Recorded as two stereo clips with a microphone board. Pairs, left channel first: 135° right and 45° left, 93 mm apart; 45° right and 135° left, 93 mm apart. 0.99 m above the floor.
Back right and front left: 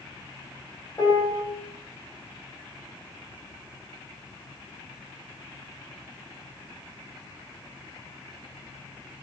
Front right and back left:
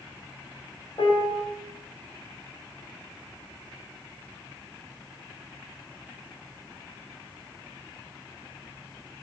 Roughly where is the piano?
Right.